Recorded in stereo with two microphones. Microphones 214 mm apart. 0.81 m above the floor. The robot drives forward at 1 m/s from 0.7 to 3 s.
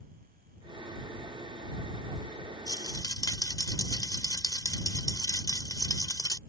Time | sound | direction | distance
2.7 | a rattle | 20° left (ahead or behind) | ?